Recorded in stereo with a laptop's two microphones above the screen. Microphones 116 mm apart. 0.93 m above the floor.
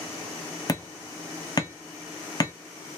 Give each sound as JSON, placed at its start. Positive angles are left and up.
{"t": 0.7, "sound": "hammering", "side_deg": 35, "distance_m": 0.8}